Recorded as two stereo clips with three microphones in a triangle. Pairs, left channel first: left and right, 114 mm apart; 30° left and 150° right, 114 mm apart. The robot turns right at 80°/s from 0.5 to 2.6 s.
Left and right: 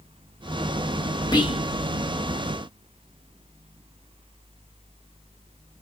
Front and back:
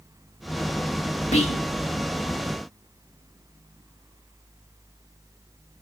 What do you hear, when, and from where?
1.3 s whispering: 35° left, 2.5 m; by 1.6 s 60° left, 2.5 m